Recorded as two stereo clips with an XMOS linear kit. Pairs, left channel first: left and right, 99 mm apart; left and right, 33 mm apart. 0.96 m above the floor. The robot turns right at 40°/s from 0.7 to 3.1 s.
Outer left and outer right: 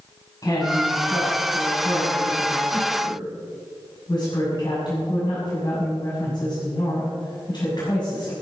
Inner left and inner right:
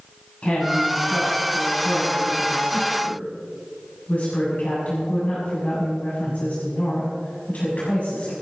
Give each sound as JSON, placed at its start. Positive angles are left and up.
{"t": 0.4, "sound": "a woman speaking", "azimuth_deg": 35, "distance_m": 6.5}